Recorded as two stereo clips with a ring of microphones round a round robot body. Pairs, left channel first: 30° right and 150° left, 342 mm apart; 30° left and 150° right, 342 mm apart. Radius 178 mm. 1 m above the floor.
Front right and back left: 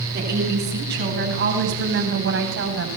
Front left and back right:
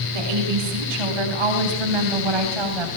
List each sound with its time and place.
0.1 s a woman speaking: 150° right, 10 m; by 2.9 s 155° right, 8 m